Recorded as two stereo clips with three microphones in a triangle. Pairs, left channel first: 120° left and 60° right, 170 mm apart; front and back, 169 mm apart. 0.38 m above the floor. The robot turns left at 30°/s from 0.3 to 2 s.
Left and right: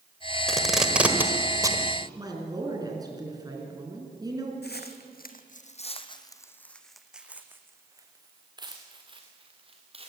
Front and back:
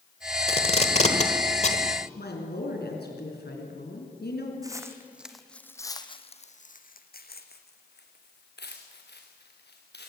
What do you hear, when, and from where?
0.5 s tape being pulled: 35° left, 1.6 m; by 1.8 s 5° right, 1.6 m
2.1 s a woman speaking: 5° left, 4.5 m
4.6 s footsteps: 110° left, 1.6 m; by 10.1 s 5° right, 3.5 m